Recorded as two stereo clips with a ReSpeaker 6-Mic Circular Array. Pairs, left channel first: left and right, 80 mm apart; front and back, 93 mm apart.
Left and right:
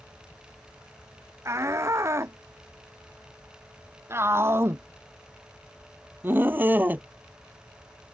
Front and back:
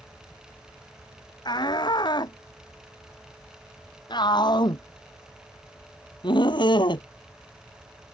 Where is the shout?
35° right; by 7.1 s 25° right.